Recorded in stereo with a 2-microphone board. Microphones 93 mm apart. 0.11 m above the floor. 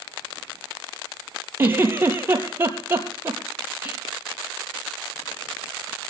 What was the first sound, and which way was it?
A giggle, 25° right (ahead or behind).